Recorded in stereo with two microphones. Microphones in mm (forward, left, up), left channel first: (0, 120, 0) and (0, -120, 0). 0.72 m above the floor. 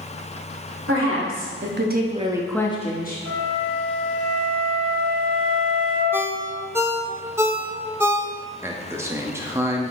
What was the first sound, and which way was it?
A woman speaking, 70° right (ahead or behind).